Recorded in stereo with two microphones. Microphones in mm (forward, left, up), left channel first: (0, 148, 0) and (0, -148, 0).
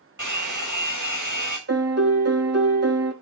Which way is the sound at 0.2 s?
85° right.